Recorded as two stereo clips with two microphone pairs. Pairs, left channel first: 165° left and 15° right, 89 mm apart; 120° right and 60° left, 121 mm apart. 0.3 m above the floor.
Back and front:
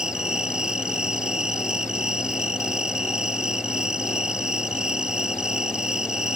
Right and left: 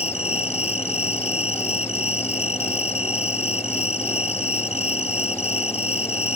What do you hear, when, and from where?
0.0 s an insect: 95° right